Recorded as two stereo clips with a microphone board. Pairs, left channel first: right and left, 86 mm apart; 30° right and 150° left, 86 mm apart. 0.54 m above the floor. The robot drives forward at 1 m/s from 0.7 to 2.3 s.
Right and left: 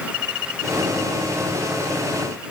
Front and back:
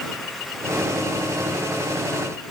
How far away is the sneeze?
I don't hear a sneeze.